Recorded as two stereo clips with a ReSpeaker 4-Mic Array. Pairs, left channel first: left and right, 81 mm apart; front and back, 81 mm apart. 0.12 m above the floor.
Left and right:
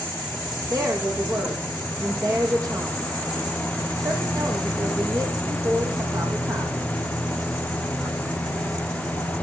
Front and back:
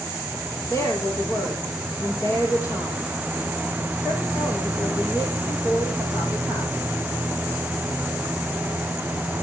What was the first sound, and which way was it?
A woman speaking, 50° right.